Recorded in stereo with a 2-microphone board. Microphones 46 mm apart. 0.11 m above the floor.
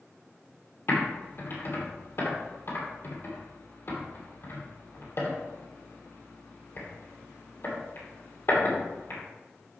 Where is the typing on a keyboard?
60° left (ahead or behind), 3 m.